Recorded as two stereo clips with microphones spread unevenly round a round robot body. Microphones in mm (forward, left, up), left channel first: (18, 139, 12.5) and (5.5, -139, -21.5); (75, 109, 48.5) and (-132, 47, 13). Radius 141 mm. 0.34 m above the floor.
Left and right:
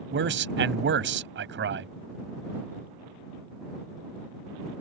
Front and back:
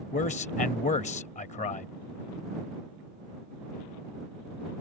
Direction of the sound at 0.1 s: 50° right.